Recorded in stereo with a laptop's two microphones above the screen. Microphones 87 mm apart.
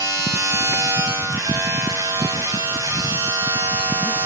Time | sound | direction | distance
0.0 | a machine running | 35° right (ahead or behind) | 6.5 m